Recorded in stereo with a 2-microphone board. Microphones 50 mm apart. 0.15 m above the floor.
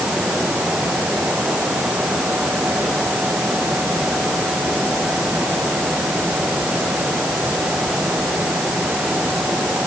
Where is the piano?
No piano in this recording.